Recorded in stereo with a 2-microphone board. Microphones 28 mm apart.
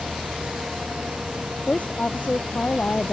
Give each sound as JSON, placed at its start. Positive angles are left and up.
{"t": 1.7, "sound": "a woman speaking", "side_deg": 60}